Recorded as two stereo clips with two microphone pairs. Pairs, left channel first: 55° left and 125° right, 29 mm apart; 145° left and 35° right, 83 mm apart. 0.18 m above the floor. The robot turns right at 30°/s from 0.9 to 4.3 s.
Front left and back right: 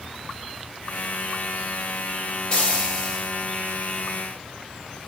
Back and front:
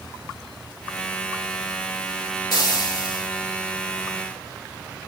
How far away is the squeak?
I don't hear a squeak.